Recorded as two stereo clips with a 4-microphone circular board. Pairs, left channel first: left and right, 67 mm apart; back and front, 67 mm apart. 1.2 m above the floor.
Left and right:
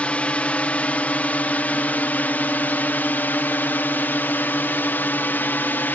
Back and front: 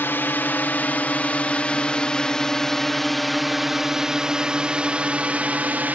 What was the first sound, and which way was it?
A drone, 145° left.